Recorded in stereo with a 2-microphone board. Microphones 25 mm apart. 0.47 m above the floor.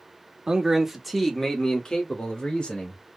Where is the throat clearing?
No throat clearing in this recording.